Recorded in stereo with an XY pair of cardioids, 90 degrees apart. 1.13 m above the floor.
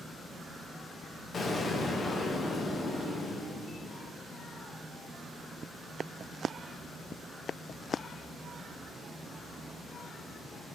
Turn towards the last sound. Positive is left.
turn(degrees=45)